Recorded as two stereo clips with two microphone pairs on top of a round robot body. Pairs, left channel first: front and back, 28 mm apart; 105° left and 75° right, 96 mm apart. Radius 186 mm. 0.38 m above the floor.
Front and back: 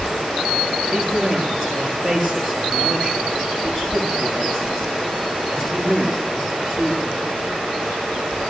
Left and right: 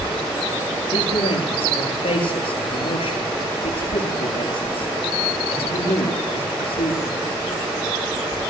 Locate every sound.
0.9 s a man speaking: 85° left, 9.5 m